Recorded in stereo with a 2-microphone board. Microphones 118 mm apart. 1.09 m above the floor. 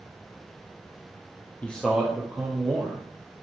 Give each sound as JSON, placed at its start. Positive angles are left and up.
{"t": 1.6, "sound": "a man speaking", "side_deg": 15, "distance_m": 0.7}